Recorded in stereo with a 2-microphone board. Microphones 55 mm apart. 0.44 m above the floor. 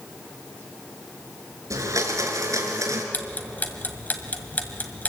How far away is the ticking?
About 2.0 m.